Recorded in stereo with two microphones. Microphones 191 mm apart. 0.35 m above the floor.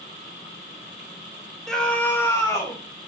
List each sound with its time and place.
1.7 s a scream: centre (ahead or behind), 0.9 m; by 2.8 s 15° left (ahead or behind), 1.6 m